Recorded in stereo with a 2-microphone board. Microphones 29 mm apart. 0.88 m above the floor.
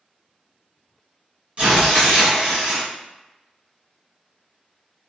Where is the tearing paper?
40° right (ahead or behind), 1.6 m.